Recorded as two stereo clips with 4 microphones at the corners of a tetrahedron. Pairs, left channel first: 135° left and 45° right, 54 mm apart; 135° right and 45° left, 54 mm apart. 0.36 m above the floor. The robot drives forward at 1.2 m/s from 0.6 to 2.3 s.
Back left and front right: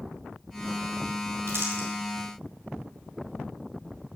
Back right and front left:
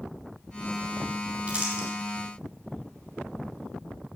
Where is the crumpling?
20° right, 3 m; by 1.9 s 25° right, 2.5 m.